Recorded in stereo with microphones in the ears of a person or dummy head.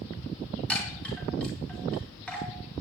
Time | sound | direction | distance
0.7 | a chime | 5° left (ahead or behind) | 5 m